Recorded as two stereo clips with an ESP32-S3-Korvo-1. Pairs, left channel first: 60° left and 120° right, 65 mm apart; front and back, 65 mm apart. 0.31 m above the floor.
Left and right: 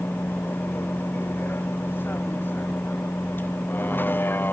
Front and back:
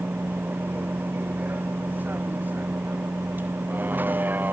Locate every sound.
0.0 s a vehicle: 115° left